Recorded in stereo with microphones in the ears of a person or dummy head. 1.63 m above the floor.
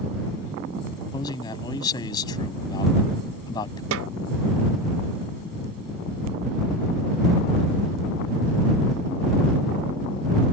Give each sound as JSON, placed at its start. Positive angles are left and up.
{"t": 1.1, "sound": "a man speaking", "side_deg": 25}
{"t": 3.9, "sound": "a snare drum", "side_deg": -75}